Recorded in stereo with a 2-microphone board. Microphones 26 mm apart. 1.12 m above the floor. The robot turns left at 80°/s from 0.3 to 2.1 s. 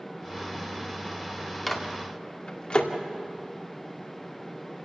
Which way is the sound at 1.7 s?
10° left (ahead or behind).